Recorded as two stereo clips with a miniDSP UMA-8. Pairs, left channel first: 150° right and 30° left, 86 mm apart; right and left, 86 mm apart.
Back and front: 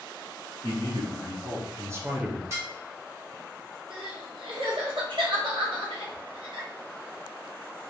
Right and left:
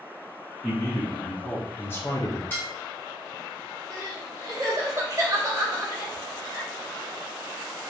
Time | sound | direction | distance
0.6 | a man speaking | 5° right | 2 m
2.5 | dishes clattering | 25° right | 1.4 m
3.9 | crying | 40° left | 1.1 m